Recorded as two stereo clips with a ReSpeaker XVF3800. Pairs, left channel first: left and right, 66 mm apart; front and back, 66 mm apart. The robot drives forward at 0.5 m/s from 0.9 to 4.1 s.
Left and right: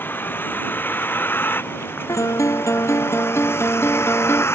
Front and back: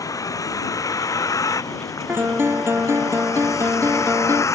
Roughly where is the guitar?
Behind left.